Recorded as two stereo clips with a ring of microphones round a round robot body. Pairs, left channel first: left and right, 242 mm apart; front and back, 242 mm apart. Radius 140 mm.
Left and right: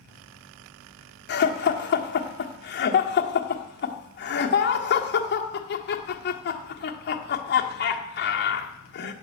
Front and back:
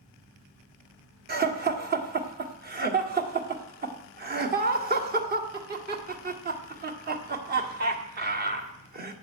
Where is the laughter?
130° left, 1.6 m.